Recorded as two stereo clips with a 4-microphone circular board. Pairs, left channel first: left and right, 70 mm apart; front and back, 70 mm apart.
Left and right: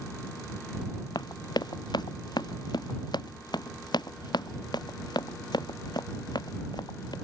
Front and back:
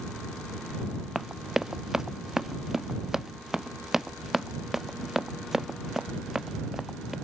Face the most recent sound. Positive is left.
turn(degrees=95)